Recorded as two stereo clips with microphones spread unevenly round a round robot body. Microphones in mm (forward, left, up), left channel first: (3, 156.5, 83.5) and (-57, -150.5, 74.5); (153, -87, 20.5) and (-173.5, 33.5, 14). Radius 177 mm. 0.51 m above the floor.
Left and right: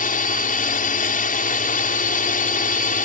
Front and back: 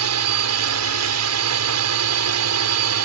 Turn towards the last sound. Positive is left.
turn(degrees=135)